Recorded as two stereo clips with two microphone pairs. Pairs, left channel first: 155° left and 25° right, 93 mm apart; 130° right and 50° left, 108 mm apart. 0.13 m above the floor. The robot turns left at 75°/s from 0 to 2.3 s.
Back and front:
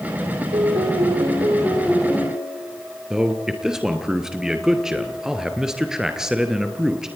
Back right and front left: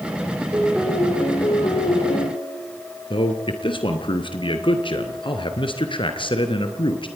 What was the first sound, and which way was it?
A piano, 10° right.